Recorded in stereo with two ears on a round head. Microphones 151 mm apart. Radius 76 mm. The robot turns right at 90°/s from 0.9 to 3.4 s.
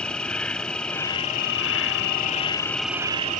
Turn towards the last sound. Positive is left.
turn(degrees=-130)